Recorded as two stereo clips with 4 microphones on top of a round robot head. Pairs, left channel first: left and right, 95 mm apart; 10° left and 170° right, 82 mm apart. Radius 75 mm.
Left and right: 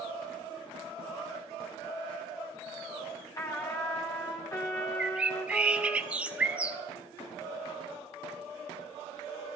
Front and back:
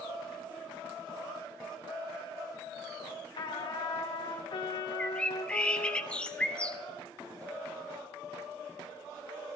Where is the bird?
40° right, 1.1 m.